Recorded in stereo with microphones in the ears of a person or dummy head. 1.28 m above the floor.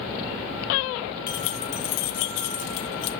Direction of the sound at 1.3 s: 20° left (ahead or behind).